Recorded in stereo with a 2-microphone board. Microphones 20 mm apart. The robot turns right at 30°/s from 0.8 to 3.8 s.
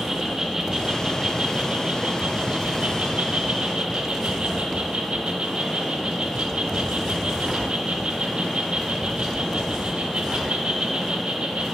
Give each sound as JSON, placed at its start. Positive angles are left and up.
{"t": 0.0, "sound": "an insect", "azimuth_deg": -155, "distance_m": 1.0}